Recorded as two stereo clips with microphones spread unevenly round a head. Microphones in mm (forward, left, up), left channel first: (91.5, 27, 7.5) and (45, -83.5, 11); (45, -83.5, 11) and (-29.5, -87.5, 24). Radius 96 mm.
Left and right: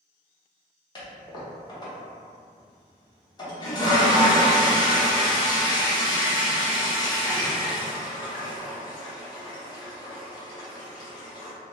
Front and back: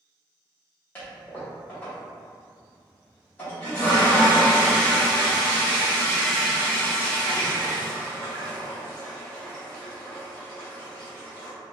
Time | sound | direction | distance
0.9 | a toilet flushing | 75° left | 0.7 m